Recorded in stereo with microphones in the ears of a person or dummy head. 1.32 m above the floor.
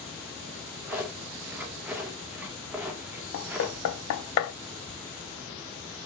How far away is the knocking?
About 0.5 m.